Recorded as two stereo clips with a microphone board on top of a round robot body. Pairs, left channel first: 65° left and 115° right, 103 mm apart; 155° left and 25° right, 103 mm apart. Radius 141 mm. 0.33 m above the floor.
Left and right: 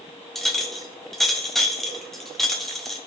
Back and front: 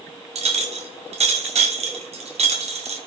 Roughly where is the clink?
Ahead.